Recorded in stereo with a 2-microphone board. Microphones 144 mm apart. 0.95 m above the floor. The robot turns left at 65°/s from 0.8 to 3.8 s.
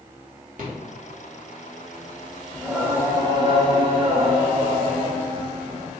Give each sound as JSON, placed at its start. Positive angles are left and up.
{"t": 0.6, "sound": "a rattle", "side_deg": -65, "distance_m": 1.0}
{"t": 2.5, "sound": "singing", "azimuth_deg": -10, "distance_m": 0.7}